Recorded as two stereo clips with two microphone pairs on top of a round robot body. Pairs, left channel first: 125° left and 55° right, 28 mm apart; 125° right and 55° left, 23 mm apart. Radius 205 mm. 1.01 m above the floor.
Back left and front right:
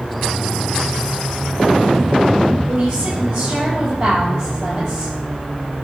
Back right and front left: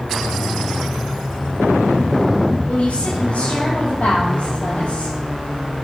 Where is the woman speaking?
85° right, 7.5 m.